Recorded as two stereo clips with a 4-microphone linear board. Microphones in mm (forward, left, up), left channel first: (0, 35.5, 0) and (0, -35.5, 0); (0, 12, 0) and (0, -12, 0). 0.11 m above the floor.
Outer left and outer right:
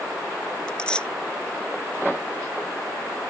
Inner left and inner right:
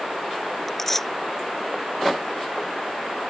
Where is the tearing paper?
15° left (ahead or behind).